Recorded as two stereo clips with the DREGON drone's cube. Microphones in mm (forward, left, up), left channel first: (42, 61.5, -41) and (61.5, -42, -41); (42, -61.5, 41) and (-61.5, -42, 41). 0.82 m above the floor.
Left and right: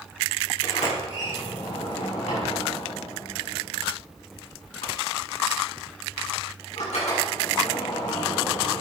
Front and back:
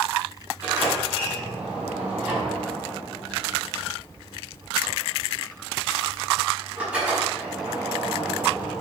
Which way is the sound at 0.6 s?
90° left.